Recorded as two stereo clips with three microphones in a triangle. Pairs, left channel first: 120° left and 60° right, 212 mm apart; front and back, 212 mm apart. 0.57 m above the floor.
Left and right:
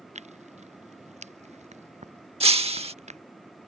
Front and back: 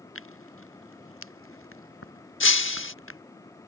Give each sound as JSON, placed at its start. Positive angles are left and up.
{"t": 0.1, "sound": "tearing paper", "azimuth_deg": 0}
{"t": 2.4, "sound": "breaking glass", "azimuth_deg": 0}